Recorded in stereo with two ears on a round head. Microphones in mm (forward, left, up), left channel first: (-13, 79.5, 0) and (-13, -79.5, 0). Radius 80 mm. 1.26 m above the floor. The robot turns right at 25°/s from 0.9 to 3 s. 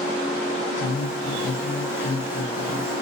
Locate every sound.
0.8 s a woman speaking: 75° left, 3 m; by 2.9 s 125° left, 3 m